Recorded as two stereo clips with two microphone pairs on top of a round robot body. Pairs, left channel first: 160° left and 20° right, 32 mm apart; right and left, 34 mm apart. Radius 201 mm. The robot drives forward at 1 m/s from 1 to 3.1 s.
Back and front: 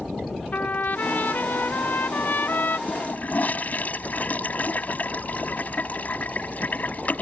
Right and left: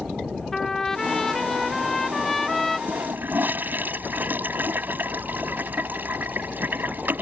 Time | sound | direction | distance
0.5 | a trumpet | 170° right | ?
2.9 | a toilet flushing | 120° left | ?